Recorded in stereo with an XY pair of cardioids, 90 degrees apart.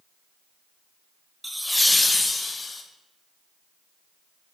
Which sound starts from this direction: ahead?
Laughter, at 1.4 s.